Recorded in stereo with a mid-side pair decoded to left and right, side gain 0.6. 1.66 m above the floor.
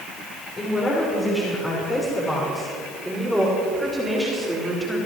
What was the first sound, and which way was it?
A woman speaking, 25° left.